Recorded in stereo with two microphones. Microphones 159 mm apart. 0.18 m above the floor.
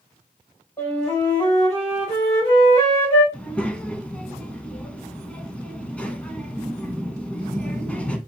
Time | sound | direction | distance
0.8 | a flute | 20° left (ahead or behind) | 4.5 m
3.3 | a child speaking | 10° left (ahead or behind) | 0.9 m